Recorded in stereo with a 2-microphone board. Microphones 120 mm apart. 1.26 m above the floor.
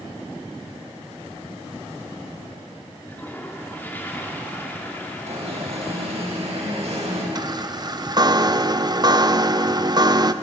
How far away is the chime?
About 0.7 m.